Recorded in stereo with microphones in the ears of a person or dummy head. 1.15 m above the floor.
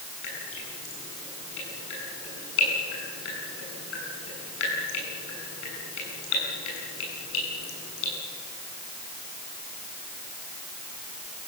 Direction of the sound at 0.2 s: 80° left.